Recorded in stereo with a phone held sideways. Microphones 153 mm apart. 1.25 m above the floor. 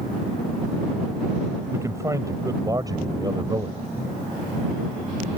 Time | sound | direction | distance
1.7 | a man speaking | 20° right (ahead or behind) | ?